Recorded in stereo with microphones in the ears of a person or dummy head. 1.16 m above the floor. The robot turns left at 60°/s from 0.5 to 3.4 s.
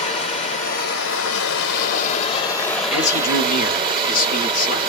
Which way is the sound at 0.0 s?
140° left.